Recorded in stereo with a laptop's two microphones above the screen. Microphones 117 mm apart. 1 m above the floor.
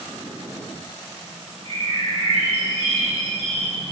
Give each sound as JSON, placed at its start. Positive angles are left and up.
{"t": 1.6, "sound": "a bird", "side_deg": -65, "distance_m": 3.5}